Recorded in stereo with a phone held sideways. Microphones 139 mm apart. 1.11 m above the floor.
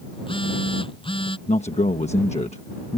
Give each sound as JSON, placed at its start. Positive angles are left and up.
{"t": 0.1, "sound": "a phone buzzing", "side_deg": 40}
{"t": 1.5, "sound": "a man speaking", "side_deg": 55}